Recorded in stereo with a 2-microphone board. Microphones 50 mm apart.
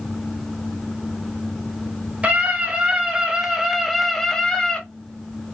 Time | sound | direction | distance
2.2 | a scream | 25° right (ahead or behind) | 1.6 m